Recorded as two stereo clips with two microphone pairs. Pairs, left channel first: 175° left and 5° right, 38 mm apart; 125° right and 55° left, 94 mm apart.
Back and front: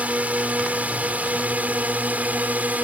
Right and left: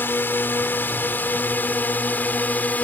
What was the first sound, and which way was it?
A drone, 55° right.